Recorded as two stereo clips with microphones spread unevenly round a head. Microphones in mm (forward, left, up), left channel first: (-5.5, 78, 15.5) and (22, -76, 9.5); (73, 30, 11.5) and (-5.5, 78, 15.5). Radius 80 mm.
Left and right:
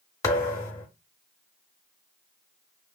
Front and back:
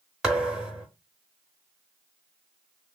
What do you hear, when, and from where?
0.2 s a thud: 90° left, 1.0 m